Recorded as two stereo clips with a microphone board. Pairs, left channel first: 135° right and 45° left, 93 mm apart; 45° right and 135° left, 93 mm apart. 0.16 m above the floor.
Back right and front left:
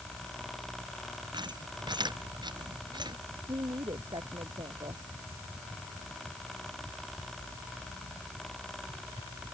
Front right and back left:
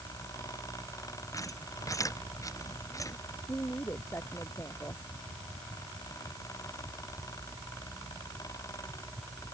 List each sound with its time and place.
1.3 s a squeak: 10° left
3.5 s a woman speaking: 20° left